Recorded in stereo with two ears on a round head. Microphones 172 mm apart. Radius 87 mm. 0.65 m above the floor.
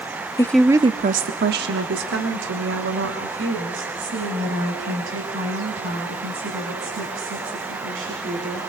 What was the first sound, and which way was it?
A woman speaking, 20° left (ahead or behind).